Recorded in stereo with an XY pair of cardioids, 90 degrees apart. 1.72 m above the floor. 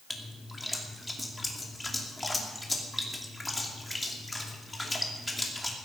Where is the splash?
15° left, 2.5 m.